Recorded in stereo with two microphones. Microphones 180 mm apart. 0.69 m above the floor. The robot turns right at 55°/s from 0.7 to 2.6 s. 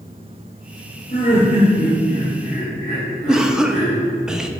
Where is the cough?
5° right (ahead or behind), 0.7 m.